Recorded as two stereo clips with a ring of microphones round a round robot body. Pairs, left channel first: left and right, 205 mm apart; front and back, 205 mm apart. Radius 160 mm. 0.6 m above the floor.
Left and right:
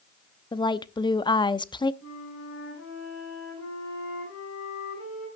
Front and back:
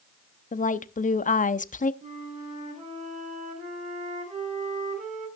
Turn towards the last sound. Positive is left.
turn(degrees=125)